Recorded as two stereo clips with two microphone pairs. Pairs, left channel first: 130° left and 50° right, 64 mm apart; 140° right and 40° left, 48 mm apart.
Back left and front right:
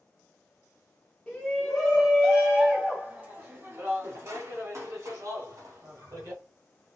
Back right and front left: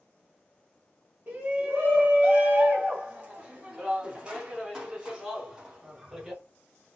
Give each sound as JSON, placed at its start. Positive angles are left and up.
{"t": 1.3, "sound": "a shout", "azimuth_deg": 60, "distance_m": 1.4}